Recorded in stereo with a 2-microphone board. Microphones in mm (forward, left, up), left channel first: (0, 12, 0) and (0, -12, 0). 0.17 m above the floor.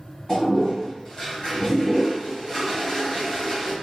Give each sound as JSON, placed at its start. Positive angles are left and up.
{"t": 0.3, "sound": "a toilet flushing", "side_deg": 35, "distance_m": 1.7}